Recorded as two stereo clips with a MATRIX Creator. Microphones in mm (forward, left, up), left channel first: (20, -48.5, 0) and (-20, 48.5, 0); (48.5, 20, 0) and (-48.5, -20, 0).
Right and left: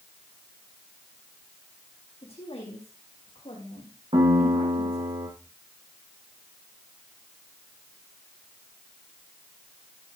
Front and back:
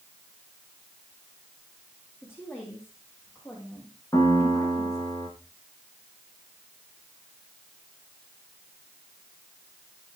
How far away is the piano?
About 7 m.